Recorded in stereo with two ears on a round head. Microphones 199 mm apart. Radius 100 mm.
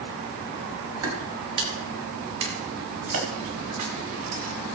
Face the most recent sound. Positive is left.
turn(degrees=-80)